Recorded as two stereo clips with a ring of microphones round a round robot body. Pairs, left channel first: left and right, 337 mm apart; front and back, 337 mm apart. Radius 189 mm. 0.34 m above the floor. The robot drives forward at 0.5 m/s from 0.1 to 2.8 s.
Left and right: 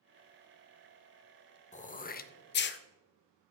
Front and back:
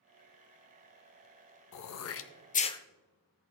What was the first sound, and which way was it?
Throat clearing, 25° left.